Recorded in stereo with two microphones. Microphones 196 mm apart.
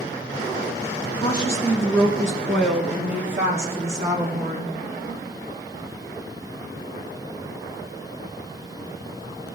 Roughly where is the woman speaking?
Left.